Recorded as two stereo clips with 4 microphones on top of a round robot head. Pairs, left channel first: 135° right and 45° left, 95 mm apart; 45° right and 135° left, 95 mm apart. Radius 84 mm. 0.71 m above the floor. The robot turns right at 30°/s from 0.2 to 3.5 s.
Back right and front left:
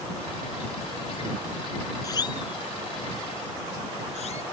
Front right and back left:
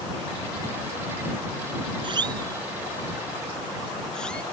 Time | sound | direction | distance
2.0 | a siren | 170° left | ?